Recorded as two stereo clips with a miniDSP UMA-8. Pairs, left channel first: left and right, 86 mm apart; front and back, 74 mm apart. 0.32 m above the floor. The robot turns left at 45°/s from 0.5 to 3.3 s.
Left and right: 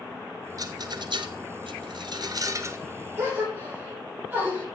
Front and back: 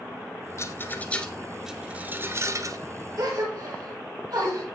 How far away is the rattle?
About 1.1 m.